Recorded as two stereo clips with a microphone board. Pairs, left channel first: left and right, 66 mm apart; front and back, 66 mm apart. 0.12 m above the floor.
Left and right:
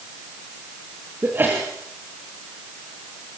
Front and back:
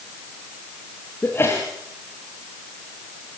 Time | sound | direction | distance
1.2 | a sneeze | 40° right | 3 m